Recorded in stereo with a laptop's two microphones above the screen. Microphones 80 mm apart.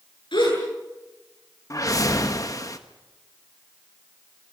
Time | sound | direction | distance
0.3 | a gasp | 80° left | 8.5 m
1.7 | a whoosh | 45° left (ahead or behind) | 1.3 m